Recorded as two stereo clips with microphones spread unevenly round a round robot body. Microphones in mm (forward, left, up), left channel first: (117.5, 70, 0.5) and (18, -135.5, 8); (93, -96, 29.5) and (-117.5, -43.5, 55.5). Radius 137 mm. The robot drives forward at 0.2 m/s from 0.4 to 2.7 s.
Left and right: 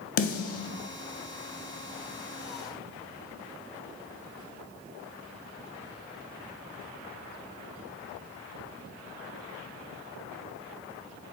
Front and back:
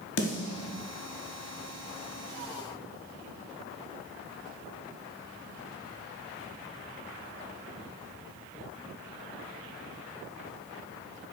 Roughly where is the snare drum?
Ahead left.